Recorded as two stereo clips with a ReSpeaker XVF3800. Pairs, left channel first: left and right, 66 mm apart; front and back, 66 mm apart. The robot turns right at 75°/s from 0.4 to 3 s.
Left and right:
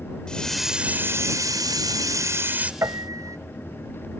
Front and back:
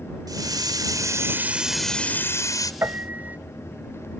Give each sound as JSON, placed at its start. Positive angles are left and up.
{"t": 0.3, "sound": "a hiss", "azimuth_deg": 165}
{"t": 2.8, "sound": "a piano", "azimuth_deg": -125}